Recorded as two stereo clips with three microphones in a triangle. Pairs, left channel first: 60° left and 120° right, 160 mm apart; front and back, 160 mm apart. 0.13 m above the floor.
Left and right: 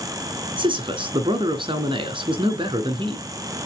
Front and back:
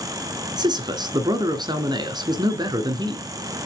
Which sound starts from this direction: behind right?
A man speaking, at 0.6 s.